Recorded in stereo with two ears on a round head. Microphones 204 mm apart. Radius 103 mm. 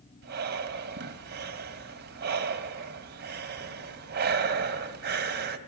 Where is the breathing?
50° right (ahead or behind), 2.5 m.